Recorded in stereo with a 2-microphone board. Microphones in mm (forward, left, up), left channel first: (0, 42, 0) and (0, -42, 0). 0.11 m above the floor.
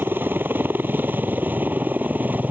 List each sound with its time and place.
0.0 s a helicopter: 25° right (ahead or behind); by 2.5 s 20° right (ahead or behind)